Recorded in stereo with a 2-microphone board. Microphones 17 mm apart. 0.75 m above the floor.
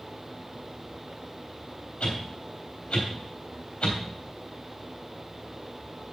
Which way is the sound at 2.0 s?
80° left.